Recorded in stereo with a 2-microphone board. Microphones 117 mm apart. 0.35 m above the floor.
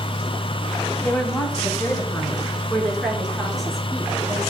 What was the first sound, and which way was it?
A woman speaking, 15° left (ahead or behind).